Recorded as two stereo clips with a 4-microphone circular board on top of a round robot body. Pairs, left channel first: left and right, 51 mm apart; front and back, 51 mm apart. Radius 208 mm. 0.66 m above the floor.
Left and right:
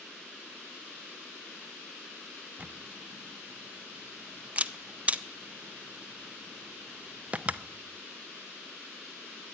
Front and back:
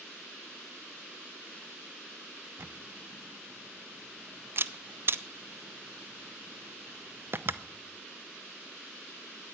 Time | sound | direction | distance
2.6 | a camera shutter | 150° right | 0.9 m